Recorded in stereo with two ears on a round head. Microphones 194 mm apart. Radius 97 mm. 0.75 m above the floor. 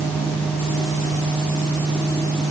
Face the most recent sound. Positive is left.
No sound to turn to.